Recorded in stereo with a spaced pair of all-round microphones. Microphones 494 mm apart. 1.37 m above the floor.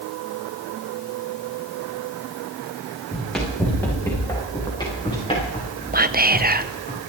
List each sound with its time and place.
3.1 s running footsteps: centre (ahead or behind), 6 m; by 6.9 s 15° left (ahead or behind), 7.5 m
5.9 s whispering: 20° right (ahead or behind), 0.7 m